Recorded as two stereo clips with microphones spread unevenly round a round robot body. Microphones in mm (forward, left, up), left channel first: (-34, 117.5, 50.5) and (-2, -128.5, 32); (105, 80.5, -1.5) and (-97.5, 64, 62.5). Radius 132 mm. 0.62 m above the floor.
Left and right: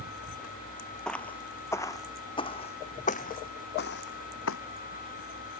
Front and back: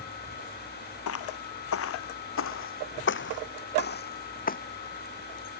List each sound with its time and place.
1.1 s footsteps: 10° left; by 4.6 s 55° left